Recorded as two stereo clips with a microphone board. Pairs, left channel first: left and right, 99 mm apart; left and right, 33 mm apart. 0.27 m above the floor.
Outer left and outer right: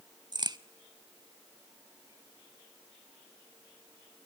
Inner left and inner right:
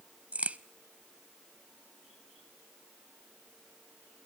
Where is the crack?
45° right (ahead or behind), 0.7 m.